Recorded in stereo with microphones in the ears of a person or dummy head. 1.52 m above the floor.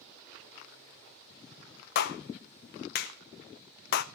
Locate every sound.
1.9 s a clap: 45° left (ahead or behind), 0.7 m